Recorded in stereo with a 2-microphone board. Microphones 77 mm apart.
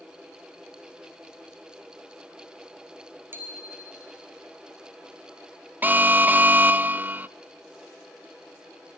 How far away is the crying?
No crying in this recording.